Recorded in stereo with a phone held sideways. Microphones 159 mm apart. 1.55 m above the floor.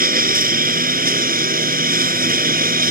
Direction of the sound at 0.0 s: 65° right (ahead or behind).